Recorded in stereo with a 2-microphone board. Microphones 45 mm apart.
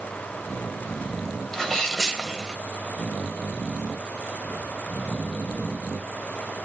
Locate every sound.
1.5 s a sneeze: 10° left (ahead or behind), 1.6 m